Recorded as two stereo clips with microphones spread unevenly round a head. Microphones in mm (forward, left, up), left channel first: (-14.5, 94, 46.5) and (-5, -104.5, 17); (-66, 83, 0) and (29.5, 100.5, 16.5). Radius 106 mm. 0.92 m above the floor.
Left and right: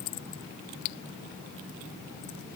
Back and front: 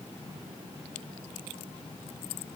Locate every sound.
Only background noise.